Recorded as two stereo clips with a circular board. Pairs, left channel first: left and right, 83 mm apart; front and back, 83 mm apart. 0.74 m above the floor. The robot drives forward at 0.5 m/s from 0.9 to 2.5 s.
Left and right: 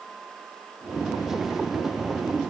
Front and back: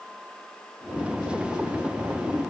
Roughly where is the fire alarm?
No fire alarm in this recording.